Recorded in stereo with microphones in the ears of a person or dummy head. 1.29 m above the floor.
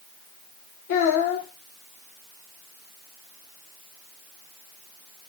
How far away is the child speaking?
About 0.7 m.